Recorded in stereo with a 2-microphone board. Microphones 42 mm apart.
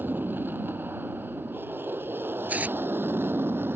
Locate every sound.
0.0 s an aircraft: 50° right (ahead or behind); by 3.8 s 60° right (ahead or behind)
2.5 s tearing paper: 40° right (ahead or behind)